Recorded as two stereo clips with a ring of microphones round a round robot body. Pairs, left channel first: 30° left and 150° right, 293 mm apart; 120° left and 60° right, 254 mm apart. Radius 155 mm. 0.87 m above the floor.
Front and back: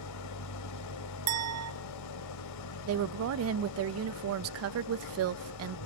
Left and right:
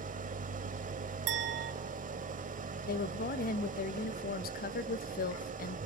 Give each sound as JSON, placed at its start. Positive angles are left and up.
{"t": 0.0, "sound": "an engine running", "azimuth_deg": 0, "distance_m": 1.3}
{"t": 1.3, "sound": "a clink", "azimuth_deg": -110, "distance_m": 1.2}
{"t": 2.9, "sound": "a woman speaking", "azimuth_deg": 175, "distance_m": 0.6}